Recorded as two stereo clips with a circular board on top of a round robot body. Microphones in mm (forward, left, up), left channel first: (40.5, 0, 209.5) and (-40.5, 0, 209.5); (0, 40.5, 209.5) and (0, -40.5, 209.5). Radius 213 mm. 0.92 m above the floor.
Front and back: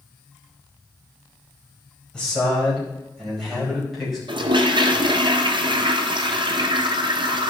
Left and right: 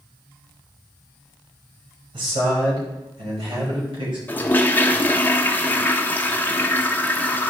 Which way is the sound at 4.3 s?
160° left.